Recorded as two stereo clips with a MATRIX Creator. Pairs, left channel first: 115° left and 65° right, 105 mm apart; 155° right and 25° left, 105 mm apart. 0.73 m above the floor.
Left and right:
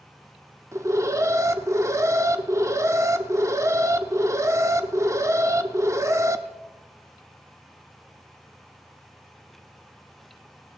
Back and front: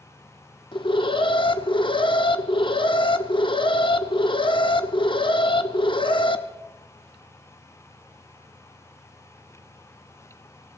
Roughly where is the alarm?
Behind right.